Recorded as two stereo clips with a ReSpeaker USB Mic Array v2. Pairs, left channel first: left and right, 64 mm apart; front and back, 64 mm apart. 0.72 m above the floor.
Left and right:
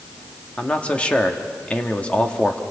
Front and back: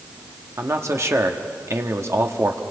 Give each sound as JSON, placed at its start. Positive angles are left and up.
{"t": 0.6, "sound": "a man speaking", "azimuth_deg": 155, "distance_m": 1.4}